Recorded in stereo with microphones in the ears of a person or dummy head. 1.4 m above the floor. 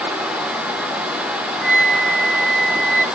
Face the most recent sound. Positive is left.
turn(degrees=-10)  # may be behind; listen again after turning